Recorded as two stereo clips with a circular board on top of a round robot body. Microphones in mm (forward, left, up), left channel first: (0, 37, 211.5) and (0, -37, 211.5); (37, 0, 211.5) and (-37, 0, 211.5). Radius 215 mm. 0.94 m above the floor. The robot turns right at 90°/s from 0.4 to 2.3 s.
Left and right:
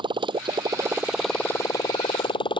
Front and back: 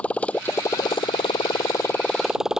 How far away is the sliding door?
No sliding door in this recording.